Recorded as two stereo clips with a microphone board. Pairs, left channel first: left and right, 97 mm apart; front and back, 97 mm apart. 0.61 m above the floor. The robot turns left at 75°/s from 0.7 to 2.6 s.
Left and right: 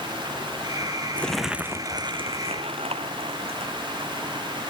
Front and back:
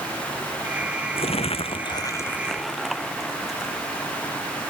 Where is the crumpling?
15° left; by 3.7 s 90° right.